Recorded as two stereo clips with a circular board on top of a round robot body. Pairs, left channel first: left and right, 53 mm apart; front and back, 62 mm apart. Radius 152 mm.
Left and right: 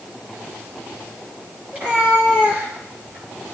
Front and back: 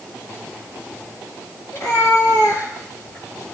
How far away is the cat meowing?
About 7 m.